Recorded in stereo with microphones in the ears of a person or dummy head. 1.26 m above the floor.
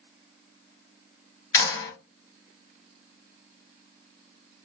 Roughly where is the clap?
Centre.